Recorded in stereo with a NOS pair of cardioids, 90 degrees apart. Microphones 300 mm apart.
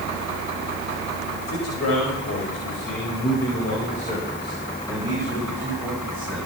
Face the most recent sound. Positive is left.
turn(degrees=0)